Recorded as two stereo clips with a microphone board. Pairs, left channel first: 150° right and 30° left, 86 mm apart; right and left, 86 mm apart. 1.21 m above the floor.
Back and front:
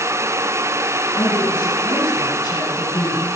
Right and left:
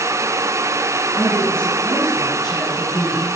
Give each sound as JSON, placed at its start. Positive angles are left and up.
{"t": 1.1, "sound": "a woman speaking", "azimuth_deg": -170, "distance_m": 9.5}